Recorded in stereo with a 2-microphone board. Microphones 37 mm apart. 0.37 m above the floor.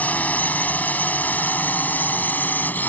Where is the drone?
45° left (ahead or behind); by 2.9 s 55° left (ahead or behind).